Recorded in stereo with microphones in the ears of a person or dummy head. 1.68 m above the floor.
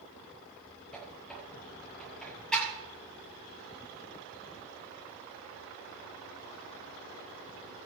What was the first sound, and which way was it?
A squeak, 5° left (ahead or behind).